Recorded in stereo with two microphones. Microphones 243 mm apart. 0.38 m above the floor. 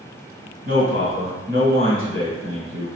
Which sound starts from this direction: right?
A man speaking, at 0.7 s.